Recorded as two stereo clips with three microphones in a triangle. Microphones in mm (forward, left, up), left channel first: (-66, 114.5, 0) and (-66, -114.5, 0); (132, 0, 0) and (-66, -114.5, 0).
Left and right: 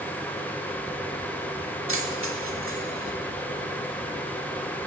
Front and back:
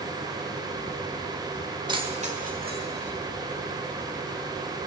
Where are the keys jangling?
80° right, 1.1 m; by 3.1 s 115° right, 1.7 m.